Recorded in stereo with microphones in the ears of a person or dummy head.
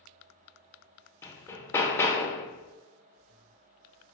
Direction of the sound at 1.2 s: 15° left (ahead or behind).